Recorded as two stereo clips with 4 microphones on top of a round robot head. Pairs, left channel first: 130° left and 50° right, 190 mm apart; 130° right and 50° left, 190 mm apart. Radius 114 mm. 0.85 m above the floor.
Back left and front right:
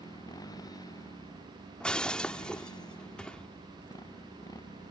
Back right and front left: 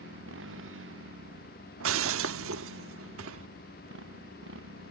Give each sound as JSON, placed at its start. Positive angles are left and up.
{"t": 0.0, "sound": "a motorcycle", "azimuth_deg": 60}
{"t": 1.8, "sound": "breaking glass", "azimuth_deg": 45}